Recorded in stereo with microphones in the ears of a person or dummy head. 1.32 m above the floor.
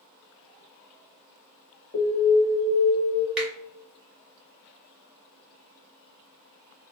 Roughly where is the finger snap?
Centre.